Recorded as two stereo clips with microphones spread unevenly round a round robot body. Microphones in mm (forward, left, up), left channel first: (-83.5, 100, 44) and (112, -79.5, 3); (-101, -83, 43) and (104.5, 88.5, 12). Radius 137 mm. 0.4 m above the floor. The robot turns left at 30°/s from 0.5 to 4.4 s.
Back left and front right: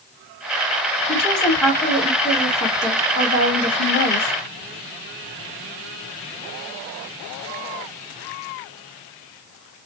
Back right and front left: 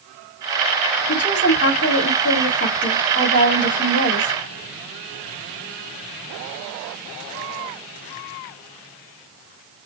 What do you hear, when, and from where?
1.1 s a woman speaking: 110° right, 1.7 m; by 4.3 s 155° left, 1.7 m